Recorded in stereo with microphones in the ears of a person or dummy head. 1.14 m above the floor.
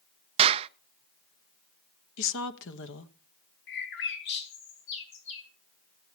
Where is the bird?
65° left (ahead or behind), 3 m.